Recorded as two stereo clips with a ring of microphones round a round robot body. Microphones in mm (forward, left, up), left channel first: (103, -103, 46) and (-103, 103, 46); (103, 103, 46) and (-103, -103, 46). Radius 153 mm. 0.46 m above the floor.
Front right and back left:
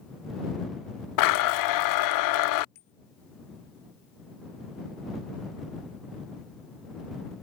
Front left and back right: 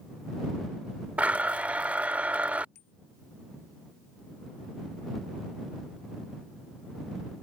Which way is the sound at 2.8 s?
Straight ahead.